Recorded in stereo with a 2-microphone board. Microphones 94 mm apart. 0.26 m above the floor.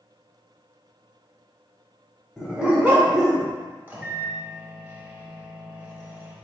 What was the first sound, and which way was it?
A dog barking, centre (ahead or behind).